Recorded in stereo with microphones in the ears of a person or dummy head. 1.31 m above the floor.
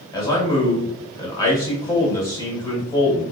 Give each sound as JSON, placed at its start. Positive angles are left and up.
{"t": 0.1, "sound": "a man speaking", "side_deg": 15, "distance_m": 1.8}